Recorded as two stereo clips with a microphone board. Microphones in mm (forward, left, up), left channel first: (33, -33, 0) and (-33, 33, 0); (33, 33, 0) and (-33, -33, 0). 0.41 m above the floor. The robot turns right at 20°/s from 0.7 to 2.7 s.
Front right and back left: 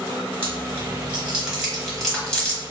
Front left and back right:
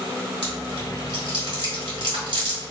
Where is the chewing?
160° right, 1.1 m; by 2.7 s 120° right, 1.1 m.